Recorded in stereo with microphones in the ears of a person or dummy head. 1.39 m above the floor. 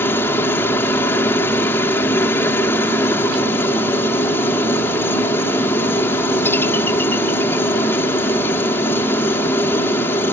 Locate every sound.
0.0 s a helicopter: 15° left (ahead or behind)